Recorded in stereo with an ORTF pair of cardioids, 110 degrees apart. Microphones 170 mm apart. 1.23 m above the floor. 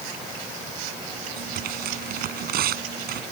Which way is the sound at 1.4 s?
65° right.